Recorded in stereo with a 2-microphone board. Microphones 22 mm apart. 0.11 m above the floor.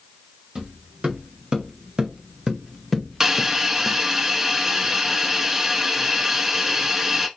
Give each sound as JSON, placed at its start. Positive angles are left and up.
{"t": 0.6, "sound": "footsteps", "side_deg": -55, "distance_m": 2.5}
{"t": 3.2, "sound": "a hiss", "side_deg": -20, "distance_m": 0.6}